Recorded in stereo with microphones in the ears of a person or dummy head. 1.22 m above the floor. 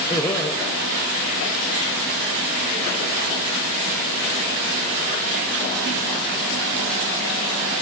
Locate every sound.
0.1 s laughter: 15° left (ahead or behind), 1.9 m